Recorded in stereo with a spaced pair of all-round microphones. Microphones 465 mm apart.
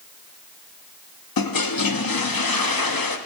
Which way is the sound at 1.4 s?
50° left (ahead or behind).